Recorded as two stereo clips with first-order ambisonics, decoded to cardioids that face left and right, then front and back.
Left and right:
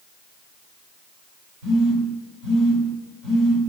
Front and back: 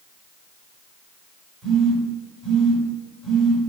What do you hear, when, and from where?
1.6 s a phone buzzing: 100° right, 1.7 m